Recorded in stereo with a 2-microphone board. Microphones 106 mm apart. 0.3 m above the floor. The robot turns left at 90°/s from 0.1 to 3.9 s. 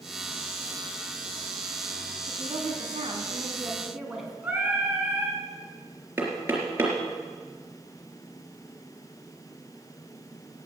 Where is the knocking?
20° right (ahead or behind), 3.5 m.